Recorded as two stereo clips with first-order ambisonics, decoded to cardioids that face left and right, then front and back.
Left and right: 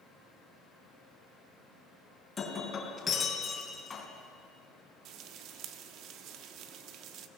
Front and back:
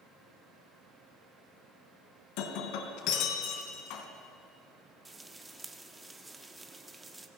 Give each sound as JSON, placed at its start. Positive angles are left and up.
{"t": 2.4, "sound": "breaking glass", "azimuth_deg": 20, "distance_m": 3.5}
{"t": 5.0, "sound": "frying", "azimuth_deg": -100, "distance_m": 1.3}